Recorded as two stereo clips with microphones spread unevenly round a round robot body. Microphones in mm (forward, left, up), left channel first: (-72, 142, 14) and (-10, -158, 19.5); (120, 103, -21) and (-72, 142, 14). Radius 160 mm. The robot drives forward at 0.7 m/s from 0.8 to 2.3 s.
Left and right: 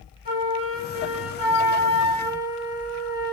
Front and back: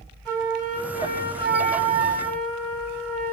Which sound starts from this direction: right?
A flute, at 0.2 s.